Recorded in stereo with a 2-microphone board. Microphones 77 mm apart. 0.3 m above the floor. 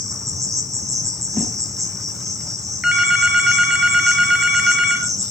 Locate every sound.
0.0 s an insect: 45° right (ahead or behind), 3 m
1.3 s a whoosh: centre (ahead or behind), 8 m
2.8 s a phone ringing: 10° right (ahead or behind), 3 m